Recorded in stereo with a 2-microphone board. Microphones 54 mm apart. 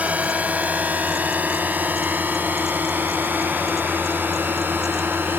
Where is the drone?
30° right (ahead or behind); by 5.4 s 40° right (ahead or behind).